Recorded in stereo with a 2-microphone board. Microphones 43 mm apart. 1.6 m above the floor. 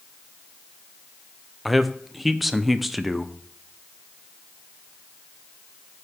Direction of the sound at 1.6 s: Centre (ahead or behind).